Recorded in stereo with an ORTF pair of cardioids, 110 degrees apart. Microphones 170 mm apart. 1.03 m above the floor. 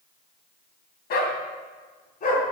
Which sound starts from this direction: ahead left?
A dog barking, at 1.1 s.